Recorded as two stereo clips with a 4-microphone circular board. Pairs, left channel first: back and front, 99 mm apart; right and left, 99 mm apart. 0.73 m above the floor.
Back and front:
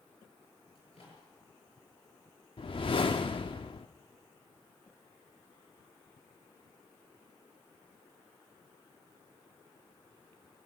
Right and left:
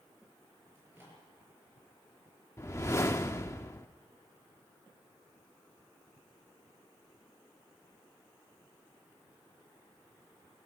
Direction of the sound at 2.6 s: 150° right.